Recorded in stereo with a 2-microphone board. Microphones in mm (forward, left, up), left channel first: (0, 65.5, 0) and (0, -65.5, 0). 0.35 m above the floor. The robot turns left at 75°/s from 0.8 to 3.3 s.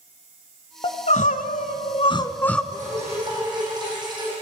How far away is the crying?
About 1.0 m.